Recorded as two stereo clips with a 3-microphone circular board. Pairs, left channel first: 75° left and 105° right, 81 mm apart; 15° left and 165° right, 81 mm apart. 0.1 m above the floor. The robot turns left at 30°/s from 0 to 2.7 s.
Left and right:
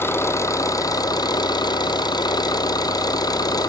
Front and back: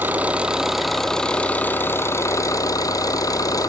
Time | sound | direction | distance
0.0 | an engine running | 130° left | 1.0 m